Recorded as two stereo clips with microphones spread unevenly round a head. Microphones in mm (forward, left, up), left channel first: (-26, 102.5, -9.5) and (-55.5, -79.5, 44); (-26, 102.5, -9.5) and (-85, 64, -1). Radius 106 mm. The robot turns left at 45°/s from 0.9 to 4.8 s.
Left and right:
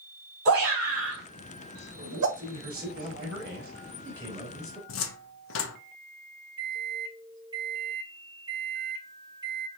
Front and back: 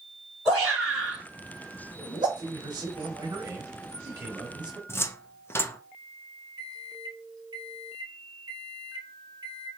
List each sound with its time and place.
0.5 s a shout: 50° right, 3 m; by 2.3 s 110° right, 3 m
2.4 s a man speaking: 120° right, 3 m; by 4.8 s 130° left, 3 m
4.9 s a cupboard door: 95° left, 0.7 m
6.6 s a microwave: 160° right, 1.1 m